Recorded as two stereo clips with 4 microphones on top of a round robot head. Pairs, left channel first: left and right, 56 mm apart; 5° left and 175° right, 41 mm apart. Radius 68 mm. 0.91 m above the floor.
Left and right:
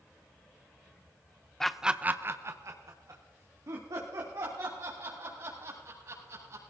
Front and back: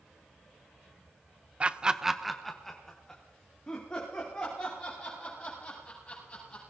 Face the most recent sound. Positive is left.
turn(degrees=-65)